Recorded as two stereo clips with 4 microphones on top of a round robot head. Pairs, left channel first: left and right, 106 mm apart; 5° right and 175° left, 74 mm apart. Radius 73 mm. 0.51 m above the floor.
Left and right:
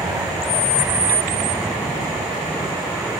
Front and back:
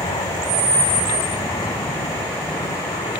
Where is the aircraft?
15° right; by 3.2 s 5° right.